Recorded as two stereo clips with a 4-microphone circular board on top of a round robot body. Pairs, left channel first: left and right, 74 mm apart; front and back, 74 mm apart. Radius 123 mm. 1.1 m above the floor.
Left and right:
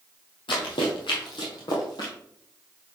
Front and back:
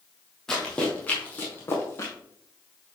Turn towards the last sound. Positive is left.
turn(degrees=55)